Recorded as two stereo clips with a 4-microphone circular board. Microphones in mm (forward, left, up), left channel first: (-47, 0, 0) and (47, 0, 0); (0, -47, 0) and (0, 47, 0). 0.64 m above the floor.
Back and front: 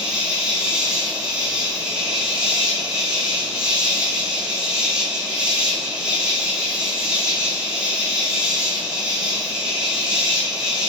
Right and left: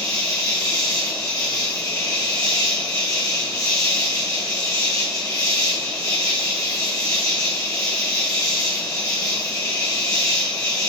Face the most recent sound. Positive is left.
turn(degrees=-70)